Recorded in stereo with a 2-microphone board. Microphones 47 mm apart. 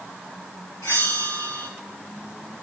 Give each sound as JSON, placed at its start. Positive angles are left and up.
{"t": 0.8, "sound": "a bell", "side_deg": 75, "distance_m": 3.0}